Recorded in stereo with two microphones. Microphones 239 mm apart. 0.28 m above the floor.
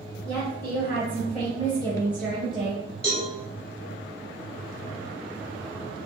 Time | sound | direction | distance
0.3 | a woman speaking | 45° left (ahead or behind) | 1.4 m
3.0 | a cowbell | 25° left (ahead or behind) | 1.7 m